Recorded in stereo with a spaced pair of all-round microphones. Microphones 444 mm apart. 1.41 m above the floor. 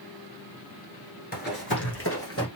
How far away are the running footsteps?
About 1.4 m.